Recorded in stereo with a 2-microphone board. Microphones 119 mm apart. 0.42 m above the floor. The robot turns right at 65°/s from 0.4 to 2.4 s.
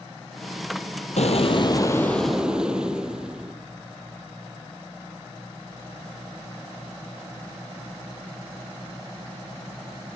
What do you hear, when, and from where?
1.2 s an explosion: 105° left, 2.5 m; by 3.5 s 175° right, 2.5 m